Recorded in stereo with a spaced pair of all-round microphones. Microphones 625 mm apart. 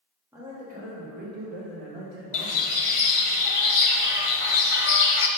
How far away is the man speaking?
About 1.7 m.